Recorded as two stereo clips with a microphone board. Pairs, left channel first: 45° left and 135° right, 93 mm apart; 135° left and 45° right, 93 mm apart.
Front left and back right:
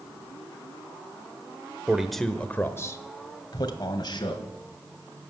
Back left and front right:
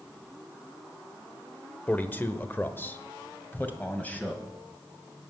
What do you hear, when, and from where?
1.9 s a man speaking: 165° left, 0.8 m; by 4.5 s 65° left, 2.0 m